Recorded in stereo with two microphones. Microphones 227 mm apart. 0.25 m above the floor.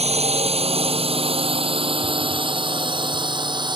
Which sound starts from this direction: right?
A drone, at 0.0 s.